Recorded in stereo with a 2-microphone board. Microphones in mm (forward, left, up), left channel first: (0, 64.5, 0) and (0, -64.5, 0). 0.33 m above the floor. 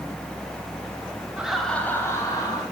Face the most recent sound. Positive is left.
turn(degrees=35)  # may be behind; listen again after turning